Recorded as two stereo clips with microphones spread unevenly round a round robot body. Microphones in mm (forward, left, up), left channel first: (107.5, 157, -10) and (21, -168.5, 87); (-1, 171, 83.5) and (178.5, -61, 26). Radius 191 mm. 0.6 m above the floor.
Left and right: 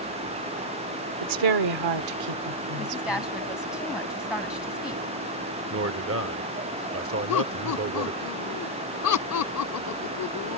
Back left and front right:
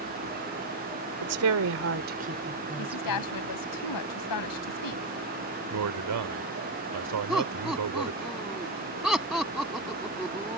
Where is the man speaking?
50° right.